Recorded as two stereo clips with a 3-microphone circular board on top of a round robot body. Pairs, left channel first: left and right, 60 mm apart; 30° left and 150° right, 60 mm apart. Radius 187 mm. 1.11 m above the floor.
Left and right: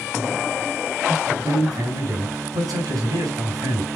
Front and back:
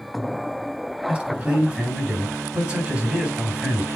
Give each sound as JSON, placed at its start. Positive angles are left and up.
{"t": 1.1, "sound": "a man speaking", "azimuth_deg": -85, "distance_m": 4.5}